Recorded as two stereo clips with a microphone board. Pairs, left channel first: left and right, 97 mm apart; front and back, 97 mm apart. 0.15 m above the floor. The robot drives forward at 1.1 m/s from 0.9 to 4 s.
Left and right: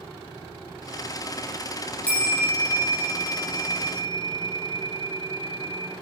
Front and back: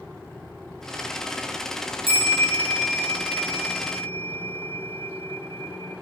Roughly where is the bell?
Behind.